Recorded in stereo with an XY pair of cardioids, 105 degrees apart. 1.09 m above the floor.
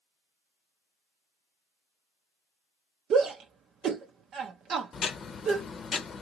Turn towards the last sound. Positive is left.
turn(degrees=45)